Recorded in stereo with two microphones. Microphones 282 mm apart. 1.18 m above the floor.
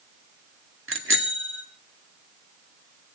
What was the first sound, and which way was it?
A bicycle bell, 40° right (ahead or behind).